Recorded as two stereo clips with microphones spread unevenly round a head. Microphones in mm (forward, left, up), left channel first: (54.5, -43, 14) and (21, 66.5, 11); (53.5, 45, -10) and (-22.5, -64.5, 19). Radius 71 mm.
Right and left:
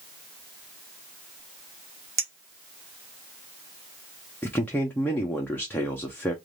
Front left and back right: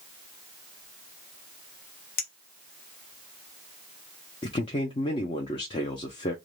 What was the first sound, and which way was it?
A clink, 45° left.